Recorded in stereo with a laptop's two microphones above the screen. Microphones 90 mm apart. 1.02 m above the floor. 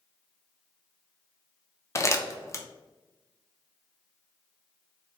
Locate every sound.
1.9 s crumpling: 35° left (ahead or behind), 0.5 m